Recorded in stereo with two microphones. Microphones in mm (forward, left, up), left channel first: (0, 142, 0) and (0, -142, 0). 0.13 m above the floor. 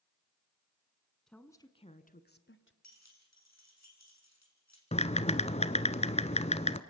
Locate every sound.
1.3 s a woman speaking: centre (ahead or behind), 1.3 m; by 2.7 s 45° left (ahead or behind), 1.6 m
2.8 s keys jangling: 60° left (ahead or behind), 4.5 m
4.9 s typing on a keyboard: 20° left (ahead or behind), 0.8 m